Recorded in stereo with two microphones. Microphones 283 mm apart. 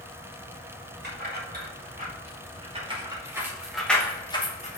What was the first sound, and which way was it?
Keys jangling, 35° right (ahead or behind).